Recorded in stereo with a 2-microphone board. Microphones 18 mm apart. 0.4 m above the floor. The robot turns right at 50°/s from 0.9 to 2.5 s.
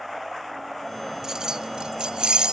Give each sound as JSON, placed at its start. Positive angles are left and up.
{"t": 1.2, "sound": "keys jangling", "azimuth_deg": -145}